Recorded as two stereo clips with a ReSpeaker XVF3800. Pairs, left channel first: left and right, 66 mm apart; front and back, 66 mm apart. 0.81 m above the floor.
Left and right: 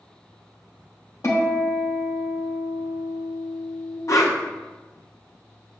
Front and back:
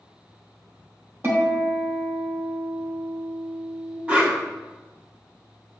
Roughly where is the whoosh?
Behind left.